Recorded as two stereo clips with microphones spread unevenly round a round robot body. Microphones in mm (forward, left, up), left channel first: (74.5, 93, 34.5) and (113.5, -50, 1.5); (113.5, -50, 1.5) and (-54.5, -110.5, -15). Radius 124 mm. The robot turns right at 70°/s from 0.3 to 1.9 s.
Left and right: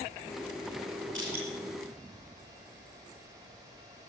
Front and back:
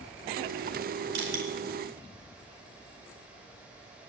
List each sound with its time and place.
1.1 s crushing: 165° right, 3.5 m; by 1.4 s 145° right, 3.5 m